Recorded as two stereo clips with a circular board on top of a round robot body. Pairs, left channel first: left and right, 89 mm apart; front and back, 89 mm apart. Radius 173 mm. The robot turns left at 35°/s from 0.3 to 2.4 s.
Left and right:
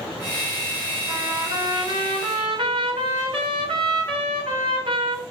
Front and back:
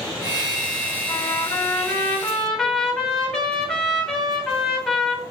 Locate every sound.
1.1 s a trumpet: 40° right, 4 m; by 5.2 s 85° right, 4 m